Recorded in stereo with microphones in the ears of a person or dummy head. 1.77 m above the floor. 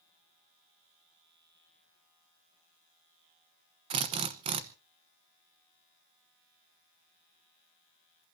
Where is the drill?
25° right (ahead or behind), 1.0 m.